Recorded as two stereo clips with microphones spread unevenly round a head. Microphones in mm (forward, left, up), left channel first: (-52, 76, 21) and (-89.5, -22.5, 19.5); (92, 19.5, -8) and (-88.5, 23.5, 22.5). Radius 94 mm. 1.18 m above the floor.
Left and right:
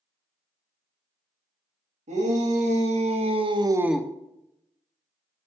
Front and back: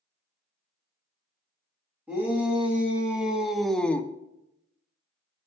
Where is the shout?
95° right, 2.5 m; by 4.1 s 35° left, 0.5 m.